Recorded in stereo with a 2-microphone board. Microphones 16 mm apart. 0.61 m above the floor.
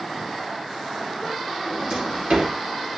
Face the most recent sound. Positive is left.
turn(degrees=-75)  # may be behind; listen again after turning